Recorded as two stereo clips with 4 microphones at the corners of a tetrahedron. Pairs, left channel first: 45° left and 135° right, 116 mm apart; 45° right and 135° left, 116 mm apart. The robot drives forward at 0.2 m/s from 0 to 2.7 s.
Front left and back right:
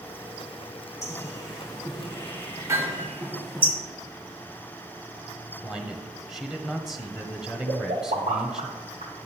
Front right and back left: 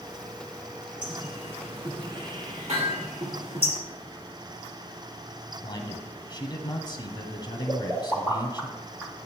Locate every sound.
1.0 s a bird: 105° left, 2.0 m; by 3.7 s 115° left, 2 m
2.7 s hammering: 160° left, 4 m
5.6 s a man speaking: 55° right, 1.2 m
7.7 s a pop: 150° right, 2.5 m